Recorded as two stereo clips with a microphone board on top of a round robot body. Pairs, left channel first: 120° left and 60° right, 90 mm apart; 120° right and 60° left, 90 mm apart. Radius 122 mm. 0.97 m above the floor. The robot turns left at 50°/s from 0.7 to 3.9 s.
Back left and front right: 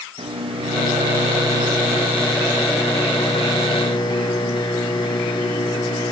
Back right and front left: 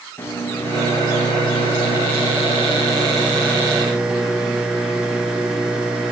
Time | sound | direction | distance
0.2 | a microwave | 55° right | 0.9 m